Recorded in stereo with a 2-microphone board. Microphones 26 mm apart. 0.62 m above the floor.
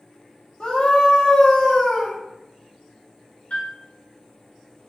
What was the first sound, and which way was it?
A scream, 35° left (ahead or behind).